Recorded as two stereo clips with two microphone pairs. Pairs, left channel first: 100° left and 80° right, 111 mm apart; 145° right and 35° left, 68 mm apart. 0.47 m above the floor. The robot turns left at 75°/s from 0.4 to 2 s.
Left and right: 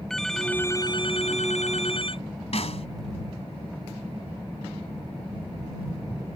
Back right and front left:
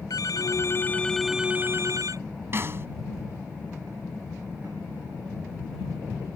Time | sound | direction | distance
0.1 | a phone ringing | 170° right | ?
2.5 | a snare drum | 85° left | ?